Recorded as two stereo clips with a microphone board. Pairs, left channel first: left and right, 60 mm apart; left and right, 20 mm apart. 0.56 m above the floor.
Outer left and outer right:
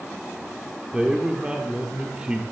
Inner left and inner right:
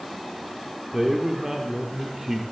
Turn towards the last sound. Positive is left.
turn(degrees=-15)  # may be behind; listen again after turning